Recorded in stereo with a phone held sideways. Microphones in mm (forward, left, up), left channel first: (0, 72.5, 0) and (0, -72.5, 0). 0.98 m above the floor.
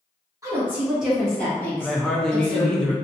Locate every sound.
0.4 s a woman speaking: 20° right (ahead or behind), 1.4 m; by 2.8 s 35° left (ahead or behind), 2 m
1.8 s a woman speaking: 5° left (ahead or behind), 0.6 m